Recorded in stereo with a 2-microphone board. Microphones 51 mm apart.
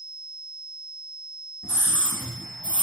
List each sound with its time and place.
1.6 s a scream: 15° left (ahead or behind), 1.0 m; by 2.8 s 20° left (ahead or behind), 1.6 m